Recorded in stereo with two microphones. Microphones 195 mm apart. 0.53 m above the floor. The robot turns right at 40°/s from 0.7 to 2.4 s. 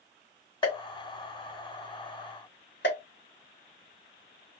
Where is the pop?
25° left (ahead or behind), 2.5 m; by 3.0 s 60° left (ahead or behind), 2.5 m.